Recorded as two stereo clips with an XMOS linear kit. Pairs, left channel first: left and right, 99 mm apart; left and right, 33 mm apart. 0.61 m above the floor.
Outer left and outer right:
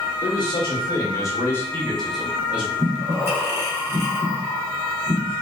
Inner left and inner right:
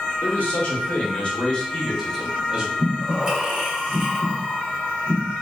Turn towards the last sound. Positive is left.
turn(degrees=-25)  # may be behind; listen again after turning